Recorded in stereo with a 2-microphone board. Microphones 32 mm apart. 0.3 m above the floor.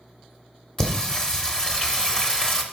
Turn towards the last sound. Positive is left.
turn(degrees=15)  # may be behind; listen again after turning